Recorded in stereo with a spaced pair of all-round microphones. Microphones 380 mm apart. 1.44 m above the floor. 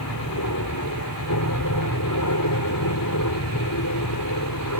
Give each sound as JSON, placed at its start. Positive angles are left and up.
{"t": 0.0, "sound": "an aircraft", "side_deg": 50}
{"t": 1.5, "sound": "an explosion", "side_deg": 5}